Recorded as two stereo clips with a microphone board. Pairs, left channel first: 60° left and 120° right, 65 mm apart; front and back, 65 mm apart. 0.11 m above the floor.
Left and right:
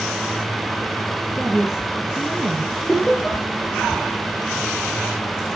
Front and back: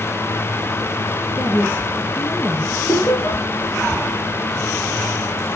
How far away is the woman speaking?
About 1.7 m.